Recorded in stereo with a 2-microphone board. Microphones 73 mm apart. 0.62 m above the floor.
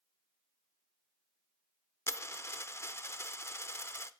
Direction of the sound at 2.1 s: 35° left (ahead or behind).